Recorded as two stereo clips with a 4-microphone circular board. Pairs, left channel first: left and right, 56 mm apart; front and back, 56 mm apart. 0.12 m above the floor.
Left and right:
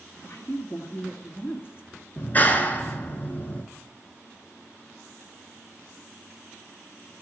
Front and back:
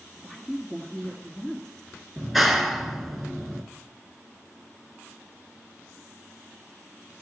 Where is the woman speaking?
75° left, 1.7 m.